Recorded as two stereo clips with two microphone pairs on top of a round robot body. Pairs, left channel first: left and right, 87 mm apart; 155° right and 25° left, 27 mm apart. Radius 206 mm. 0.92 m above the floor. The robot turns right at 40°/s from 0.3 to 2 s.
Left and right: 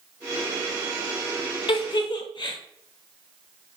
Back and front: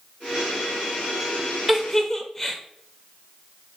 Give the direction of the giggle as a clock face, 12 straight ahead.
8 o'clock.